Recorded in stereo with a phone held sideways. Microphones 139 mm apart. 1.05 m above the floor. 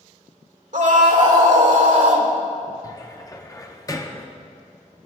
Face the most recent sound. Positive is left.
turn(degrees=25)  # may be behind; listen again after turning